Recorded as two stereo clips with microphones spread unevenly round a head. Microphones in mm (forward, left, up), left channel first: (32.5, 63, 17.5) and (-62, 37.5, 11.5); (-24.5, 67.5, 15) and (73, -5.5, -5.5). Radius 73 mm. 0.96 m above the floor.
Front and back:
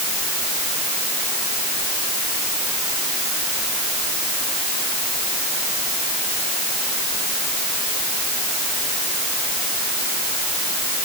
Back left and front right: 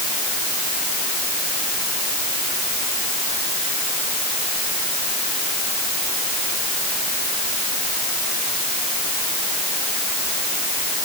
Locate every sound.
Only background noise.